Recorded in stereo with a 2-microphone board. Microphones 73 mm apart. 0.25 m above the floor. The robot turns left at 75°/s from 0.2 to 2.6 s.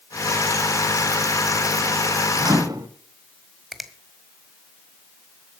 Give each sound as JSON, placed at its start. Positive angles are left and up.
{"t": 2.4, "sound": "a microwave", "side_deg": -60, "distance_m": 2.0}
{"t": 3.7, "sound": "a finger snap", "side_deg": 0, "distance_m": 1.5}